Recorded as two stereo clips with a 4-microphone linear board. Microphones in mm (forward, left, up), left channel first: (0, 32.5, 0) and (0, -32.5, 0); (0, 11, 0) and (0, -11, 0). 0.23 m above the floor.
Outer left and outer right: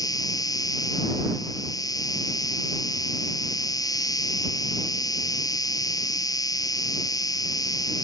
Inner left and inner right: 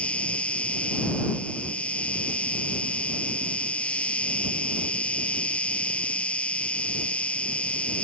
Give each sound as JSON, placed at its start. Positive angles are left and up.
{"t": 0.0, "sound": "an insect", "side_deg": 70}